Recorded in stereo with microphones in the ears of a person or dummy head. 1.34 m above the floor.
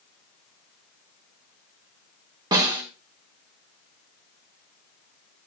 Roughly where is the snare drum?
Right.